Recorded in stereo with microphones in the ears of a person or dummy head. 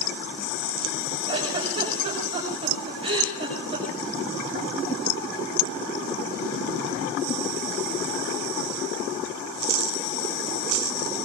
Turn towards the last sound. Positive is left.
turn(degrees=-25)  # may be behind; listen again after turning